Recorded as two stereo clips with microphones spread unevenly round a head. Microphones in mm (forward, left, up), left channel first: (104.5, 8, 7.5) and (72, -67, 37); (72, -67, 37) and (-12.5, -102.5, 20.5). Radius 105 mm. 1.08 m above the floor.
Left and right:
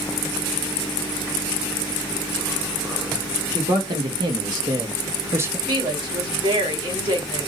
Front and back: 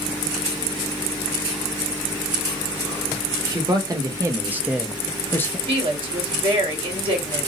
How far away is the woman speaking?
About 2 m.